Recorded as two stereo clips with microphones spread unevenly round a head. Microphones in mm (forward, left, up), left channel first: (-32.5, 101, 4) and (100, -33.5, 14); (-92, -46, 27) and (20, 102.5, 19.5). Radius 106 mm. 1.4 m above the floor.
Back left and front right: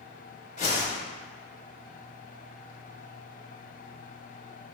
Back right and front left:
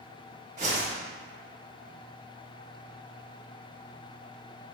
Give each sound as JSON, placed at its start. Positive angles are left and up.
{"t": 0.6, "sound": "a whoosh", "azimuth_deg": 90, "distance_m": 1.0}